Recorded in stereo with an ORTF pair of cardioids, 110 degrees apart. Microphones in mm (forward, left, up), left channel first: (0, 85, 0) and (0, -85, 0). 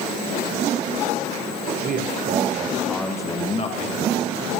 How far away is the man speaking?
About 1.8 m.